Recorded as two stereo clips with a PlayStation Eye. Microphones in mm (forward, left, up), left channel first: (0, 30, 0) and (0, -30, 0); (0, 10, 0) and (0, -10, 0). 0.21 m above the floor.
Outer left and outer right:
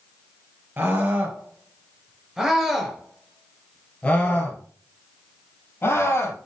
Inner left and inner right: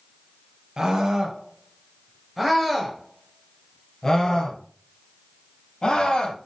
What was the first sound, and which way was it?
A scream, 35° right (ahead or behind).